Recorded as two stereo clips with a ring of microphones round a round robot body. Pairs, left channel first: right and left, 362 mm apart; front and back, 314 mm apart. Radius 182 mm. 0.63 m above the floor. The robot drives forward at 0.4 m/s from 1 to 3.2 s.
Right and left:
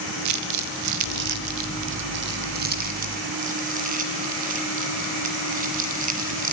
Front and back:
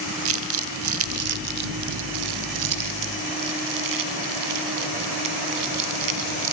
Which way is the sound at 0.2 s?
135° left.